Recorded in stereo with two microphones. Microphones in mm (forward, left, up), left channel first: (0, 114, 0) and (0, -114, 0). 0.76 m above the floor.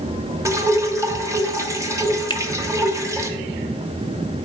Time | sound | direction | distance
0.5 | dripping | 15° right (ahead or behind) | 0.8 m
2.3 | a finger snap | 20° left (ahead or behind) | 0.6 m